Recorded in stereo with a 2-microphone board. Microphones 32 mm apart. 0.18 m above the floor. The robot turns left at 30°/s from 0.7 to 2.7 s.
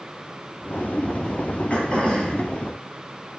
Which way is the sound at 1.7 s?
40° left (ahead or behind).